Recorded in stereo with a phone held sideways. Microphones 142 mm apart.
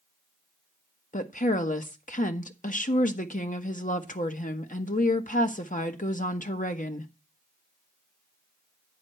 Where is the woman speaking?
70° left (ahead or behind), 1.2 m.